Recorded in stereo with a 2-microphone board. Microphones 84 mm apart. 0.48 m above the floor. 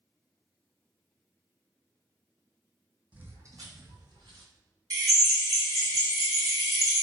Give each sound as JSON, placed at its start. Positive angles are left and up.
{"t": 3.1, "sound": "footsteps", "side_deg": -15, "distance_m": 0.7}
{"t": 4.9, "sound": "a drill", "side_deg": -50, "distance_m": 1.5}